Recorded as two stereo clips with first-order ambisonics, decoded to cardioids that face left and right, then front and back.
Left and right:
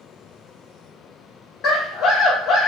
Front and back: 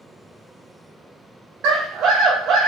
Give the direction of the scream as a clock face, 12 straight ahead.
8 o'clock.